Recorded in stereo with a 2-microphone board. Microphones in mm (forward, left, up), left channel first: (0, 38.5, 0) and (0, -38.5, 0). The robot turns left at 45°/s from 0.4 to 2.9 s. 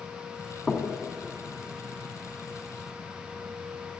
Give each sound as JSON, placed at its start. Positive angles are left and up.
{"t": 0.7, "sound": "knocking", "side_deg": 5, "distance_m": 2.0}